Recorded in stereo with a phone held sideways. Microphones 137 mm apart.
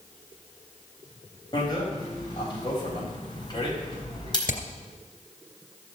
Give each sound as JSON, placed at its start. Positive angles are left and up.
{"t": 1.5, "sound": "a bicycle bell", "side_deg": 35, "distance_m": 4.0}
{"t": 4.5, "sound": "hammering", "side_deg": 85, "distance_m": 2.5}